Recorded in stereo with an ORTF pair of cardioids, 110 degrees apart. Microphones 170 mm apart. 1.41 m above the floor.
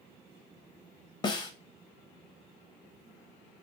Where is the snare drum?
25° left, 0.7 m.